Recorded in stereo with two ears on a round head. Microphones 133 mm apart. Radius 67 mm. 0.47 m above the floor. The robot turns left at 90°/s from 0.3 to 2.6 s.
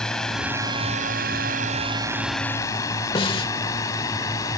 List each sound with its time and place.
0.0 s a drone: 5° left (ahead or behind); by 4.6 s 25° left (ahead or behind)
3.1 s a snare drum: 35° left (ahead or behind)